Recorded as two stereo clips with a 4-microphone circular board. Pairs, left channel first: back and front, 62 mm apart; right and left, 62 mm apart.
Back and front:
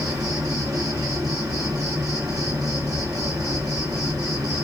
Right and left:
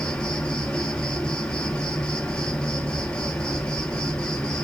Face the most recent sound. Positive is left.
turn(degrees=-15)